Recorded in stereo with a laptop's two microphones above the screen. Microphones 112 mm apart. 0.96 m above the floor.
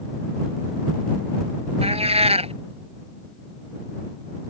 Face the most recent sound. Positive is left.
turn(degrees=-60)  # may be behind; listen again after turning